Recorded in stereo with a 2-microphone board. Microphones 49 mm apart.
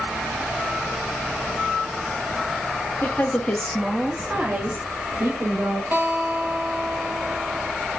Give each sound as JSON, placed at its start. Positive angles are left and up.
{"t": 3.0, "sound": "a woman speaking", "side_deg": 45, "distance_m": 0.7}
{"t": 5.9, "sound": "a guitar", "side_deg": -50, "distance_m": 0.8}